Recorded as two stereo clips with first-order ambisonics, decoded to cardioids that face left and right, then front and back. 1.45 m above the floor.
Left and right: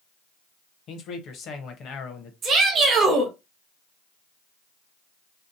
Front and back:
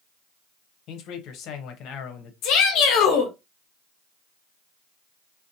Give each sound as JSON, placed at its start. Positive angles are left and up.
{"t": 0.9, "sound": "a man speaking", "azimuth_deg": 40, "distance_m": 0.7}
{"t": 2.4, "sound": "a shout", "azimuth_deg": -25, "distance_m": 0.7}